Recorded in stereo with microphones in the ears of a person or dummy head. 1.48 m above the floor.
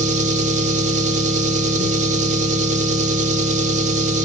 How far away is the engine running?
About 2.5 m.